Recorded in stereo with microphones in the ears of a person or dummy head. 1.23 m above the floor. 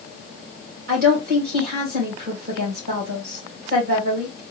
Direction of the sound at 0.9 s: 55° right (ahead or behind).